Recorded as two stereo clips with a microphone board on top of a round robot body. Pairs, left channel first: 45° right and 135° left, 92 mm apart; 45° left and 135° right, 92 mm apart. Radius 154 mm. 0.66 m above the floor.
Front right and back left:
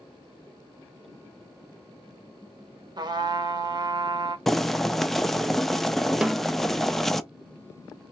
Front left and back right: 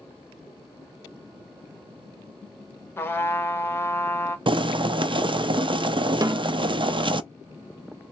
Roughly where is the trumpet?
Left.